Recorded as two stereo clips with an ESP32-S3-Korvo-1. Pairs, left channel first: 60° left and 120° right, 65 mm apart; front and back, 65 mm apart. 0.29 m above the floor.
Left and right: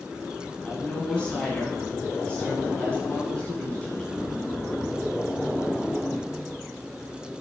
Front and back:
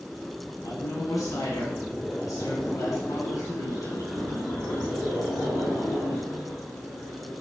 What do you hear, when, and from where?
0.6 s a woman speaking: 10° right, 2.5 m